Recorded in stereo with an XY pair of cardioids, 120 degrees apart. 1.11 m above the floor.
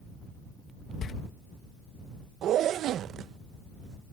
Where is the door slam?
50° left.